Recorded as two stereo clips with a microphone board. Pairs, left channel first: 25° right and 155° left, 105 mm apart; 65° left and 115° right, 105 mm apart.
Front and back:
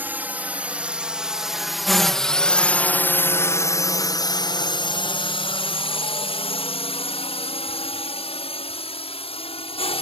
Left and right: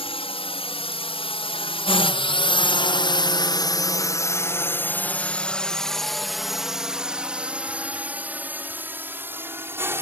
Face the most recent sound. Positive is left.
turn(degrees=-45)